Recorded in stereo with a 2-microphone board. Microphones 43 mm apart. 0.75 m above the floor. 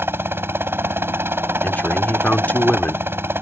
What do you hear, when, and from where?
0.0 s a helicopter: 60° right (ahead or behind)
1.6 s a man speaking: 40° left (ahead or behind)